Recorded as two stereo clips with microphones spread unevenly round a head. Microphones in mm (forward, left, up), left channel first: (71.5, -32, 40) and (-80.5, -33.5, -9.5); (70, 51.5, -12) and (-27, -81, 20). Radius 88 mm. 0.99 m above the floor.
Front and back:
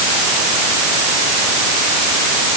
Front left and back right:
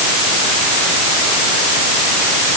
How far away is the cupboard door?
No cupboard door in this recording.